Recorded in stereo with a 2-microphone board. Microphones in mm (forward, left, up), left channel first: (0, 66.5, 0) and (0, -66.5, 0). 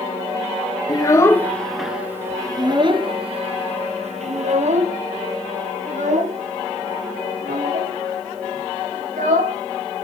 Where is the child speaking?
30° left (ahead or behind), 1.2 m; by 9.6 s 70° right (ahead or behind), 5.5 m.